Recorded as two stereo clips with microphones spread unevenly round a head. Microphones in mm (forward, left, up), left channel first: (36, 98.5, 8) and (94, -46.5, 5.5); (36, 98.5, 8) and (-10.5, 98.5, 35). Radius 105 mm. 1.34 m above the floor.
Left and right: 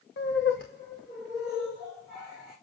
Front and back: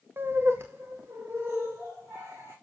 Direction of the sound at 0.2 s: 140° left.